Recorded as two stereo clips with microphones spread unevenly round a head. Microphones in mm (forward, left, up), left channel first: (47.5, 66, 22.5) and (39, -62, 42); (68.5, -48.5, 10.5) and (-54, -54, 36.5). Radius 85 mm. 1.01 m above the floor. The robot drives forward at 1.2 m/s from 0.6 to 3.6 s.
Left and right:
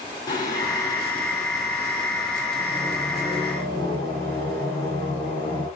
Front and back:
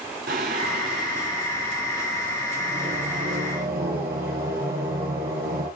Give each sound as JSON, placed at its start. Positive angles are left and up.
{"t": 0.3, "sound": "singing", "azimuth_deg": 155, "distance_m": 4.0}